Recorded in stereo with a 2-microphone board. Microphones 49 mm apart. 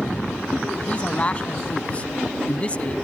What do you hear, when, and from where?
0.9 s a man speaking: 25° left (ahead or behind)